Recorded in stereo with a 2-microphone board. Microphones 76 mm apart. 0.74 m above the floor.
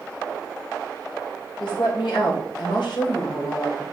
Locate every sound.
1.6 s a woman speaking: 75° left (ahead or behind), 3 m